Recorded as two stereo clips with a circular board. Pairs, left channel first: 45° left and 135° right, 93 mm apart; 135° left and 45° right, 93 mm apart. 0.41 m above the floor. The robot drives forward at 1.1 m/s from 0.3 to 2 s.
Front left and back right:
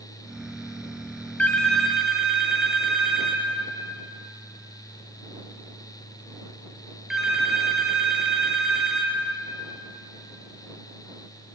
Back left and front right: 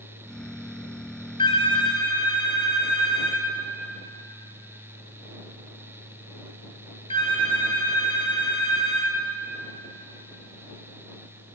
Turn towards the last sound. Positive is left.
turn(degrees=140)